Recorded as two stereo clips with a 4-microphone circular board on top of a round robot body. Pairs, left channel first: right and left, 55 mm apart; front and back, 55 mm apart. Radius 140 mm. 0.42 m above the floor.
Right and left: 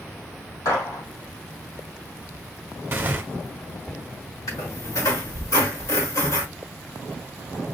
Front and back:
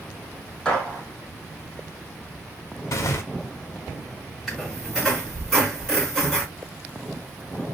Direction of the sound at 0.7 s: 85° right.